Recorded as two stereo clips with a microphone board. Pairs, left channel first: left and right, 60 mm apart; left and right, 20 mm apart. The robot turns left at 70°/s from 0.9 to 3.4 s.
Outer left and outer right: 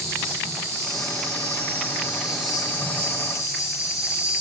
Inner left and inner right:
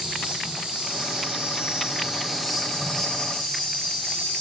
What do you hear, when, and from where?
0.0 s an insect: 70° right, 0.8 m; by 4.4 s 115° left, 0.8 m